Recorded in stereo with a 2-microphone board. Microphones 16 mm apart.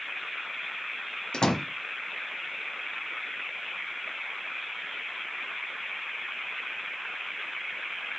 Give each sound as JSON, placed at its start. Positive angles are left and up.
{"t": 1.3, "sound": "a door slam", "side_deg": 55, "distance_m": 1.4}